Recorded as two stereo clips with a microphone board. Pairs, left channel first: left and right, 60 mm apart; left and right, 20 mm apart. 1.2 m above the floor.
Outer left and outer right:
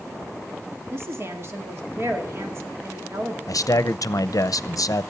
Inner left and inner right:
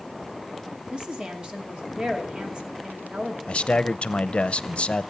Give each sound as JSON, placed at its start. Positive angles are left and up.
{"t": 0.9, "sound": "a woman speaking", "side_deg": -50, "distance_m": 2.0}
{"t": 3.5, "sound": "a man speaking", "side_deg": 70, "distance_m": 0.6}